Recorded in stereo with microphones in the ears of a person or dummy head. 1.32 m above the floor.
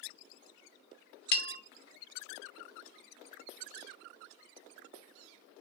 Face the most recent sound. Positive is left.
turn(degrees=60)  # may be behind; listen again after turning